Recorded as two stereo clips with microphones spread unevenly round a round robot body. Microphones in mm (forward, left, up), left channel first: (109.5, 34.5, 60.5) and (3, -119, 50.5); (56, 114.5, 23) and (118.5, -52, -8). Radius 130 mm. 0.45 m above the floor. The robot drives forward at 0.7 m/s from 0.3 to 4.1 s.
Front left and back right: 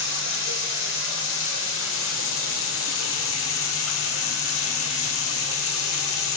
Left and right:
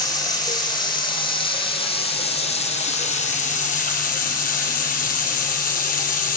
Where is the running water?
40° left, 5 m; by 6.4 s 75° left, 3.5 m.